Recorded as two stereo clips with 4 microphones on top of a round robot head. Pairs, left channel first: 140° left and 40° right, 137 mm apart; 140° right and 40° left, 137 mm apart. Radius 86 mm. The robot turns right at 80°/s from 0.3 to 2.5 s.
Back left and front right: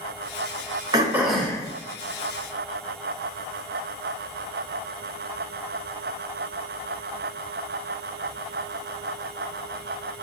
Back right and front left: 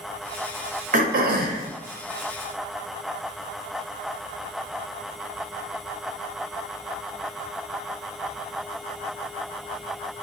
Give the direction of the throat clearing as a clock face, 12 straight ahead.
11 o'clock.